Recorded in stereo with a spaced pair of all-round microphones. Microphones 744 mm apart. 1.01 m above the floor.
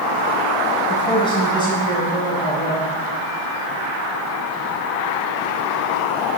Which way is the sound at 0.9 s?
5° left (ahead or behind).